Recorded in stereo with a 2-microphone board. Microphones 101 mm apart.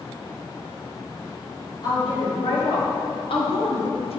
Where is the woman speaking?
45° left (ahead or behind), 2.5 m; by 4.2 s 80° left, 1.1 m.